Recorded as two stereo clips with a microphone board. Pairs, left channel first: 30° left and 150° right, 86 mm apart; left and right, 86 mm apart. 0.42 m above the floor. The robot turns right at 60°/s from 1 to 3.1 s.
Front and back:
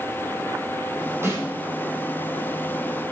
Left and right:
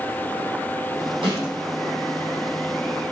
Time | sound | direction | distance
1.2 | a snare drum | 90° right | 4 m